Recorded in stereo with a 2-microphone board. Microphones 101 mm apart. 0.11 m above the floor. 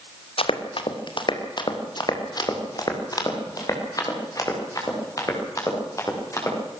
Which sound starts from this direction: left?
Running footsteps, at 0.4 s.